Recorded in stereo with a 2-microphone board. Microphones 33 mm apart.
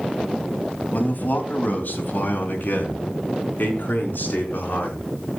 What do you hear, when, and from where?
0.9 s a man speaking: 55° left (ahead or behind), 3 m; by 5.0 s 60° left (ahead or behind), 5.5 m